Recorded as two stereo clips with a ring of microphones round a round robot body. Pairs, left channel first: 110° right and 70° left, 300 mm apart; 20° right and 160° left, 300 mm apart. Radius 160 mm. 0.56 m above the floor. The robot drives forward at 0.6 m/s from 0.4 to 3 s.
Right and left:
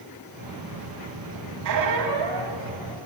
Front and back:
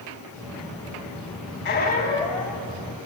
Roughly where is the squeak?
Ahead left.